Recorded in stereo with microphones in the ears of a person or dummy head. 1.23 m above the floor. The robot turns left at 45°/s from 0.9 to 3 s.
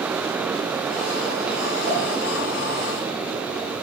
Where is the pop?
30° right (ahead or behind), 4.5 m; by 2.0 s 20° right (ahead or behind), 4.5 m.